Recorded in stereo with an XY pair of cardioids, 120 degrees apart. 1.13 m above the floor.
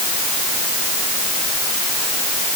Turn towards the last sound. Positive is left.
No sound to turn to.